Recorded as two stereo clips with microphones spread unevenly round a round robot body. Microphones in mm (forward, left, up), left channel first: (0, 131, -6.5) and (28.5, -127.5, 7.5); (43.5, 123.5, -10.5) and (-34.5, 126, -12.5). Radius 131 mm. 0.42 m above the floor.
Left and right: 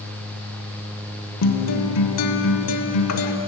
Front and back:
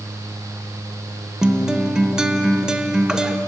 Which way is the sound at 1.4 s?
100° left.